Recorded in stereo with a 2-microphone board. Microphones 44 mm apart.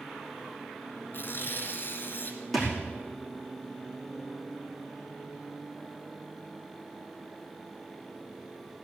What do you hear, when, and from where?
1.1 s tearing paper: 50° left (ahead or behind), 2.0 m
2.5 s a thud: centre (ahead or behind), 5 m